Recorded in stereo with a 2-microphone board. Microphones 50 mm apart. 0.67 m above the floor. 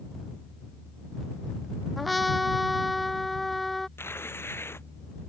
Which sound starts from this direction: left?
Tearing paper, at 4.0 s.